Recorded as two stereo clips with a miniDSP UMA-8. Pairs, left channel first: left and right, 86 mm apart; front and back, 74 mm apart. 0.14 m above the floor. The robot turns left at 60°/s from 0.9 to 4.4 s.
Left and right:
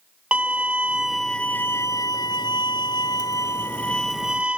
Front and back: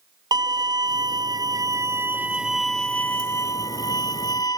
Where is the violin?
165° right; by 4.6 s 15° right.